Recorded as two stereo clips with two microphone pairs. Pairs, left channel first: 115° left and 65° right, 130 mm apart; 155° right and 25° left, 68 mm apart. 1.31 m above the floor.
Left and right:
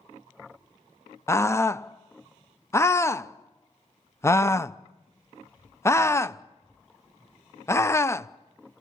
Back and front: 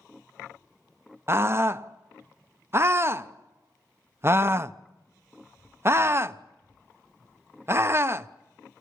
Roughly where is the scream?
Ahead left.